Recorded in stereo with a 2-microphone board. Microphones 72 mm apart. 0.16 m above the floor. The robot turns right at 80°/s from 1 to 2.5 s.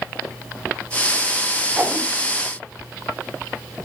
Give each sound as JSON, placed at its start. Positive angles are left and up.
{"t": 1.8, "sound": "a whoosh", "side_deg": -20, "distance_m": 1.3}